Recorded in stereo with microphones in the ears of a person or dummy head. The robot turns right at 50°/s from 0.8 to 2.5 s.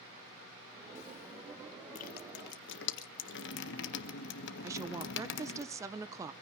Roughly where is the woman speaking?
Centre.